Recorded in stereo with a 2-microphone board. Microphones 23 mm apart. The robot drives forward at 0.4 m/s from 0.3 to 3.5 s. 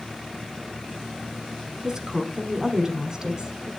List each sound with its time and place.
1.8 s a woman speaking: 25° right (ahead or behind), 1.2 m